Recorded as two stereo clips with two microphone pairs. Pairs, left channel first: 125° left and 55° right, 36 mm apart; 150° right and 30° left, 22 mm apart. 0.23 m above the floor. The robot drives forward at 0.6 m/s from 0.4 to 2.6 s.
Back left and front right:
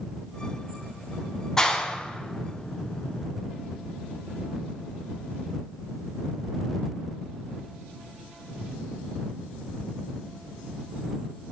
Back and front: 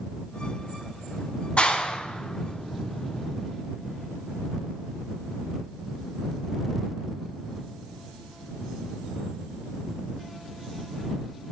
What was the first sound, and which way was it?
A clap, 165° right.